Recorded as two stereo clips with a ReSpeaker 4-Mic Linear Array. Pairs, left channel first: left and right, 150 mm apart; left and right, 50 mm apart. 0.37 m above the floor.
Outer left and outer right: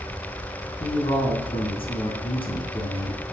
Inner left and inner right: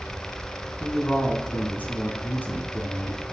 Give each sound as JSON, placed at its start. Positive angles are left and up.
{"t": 0.8, "sound": "a man speaking", "side_deg": 35, "distance_m": 3.5}